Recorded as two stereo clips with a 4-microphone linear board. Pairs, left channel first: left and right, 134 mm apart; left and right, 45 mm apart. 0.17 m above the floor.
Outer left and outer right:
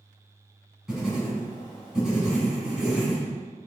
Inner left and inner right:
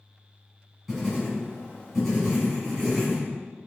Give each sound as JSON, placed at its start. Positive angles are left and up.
{"t": 0.9, "sound": "writing", "side_deg": -5, "distance_m": 1.7}